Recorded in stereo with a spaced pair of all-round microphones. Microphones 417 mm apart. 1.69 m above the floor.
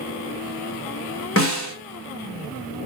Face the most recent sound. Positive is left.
turn(degrees=30)  # may be behind; listen again after turning